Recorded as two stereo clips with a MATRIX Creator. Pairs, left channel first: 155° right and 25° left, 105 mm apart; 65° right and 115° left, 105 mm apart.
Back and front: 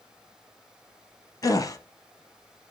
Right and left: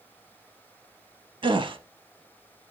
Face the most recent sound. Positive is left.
turn(degrees=150)